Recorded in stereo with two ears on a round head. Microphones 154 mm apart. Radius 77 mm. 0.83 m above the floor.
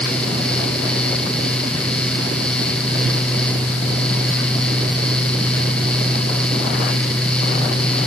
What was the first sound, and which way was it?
Only background noise.